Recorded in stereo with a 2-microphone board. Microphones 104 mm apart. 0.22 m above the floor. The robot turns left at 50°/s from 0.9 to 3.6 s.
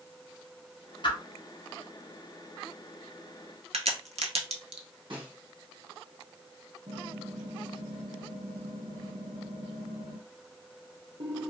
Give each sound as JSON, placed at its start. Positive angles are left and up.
{"t": 1.0, "sound": "a whoosh", "side_deg": 50, "distance_m": 1.0}
{"t": 3.7, "sound": "a crack", "side_deg": -80, "distance_m": 0.7}
{"t": 5.1, "sound": "a snare drum", "side_deg": -55, "distance_m": 2.0}
{"t": 6.9, "sound": "typing on a keyboard", "side_deg": -80, "distance_m": 1.5}